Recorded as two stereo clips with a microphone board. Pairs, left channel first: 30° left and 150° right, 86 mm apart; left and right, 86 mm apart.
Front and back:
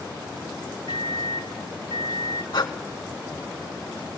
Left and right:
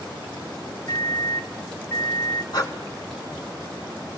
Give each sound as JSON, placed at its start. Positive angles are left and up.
{"t": 0.9, "sound": "a microwave", "azimuth_deg": 35, "distance_m": 2.5}
{"t": 2.5, "sound": "breathing", "azimuth_deg": 55, "distance_m": 3.0}